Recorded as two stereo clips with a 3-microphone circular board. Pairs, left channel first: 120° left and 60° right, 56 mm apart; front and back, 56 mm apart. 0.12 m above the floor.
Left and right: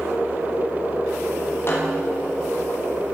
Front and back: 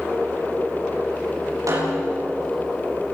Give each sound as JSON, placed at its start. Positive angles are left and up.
{"t": 1.7, "sound": "a snare drum", "azimuth_deg": 165, "distance_m": 9.5}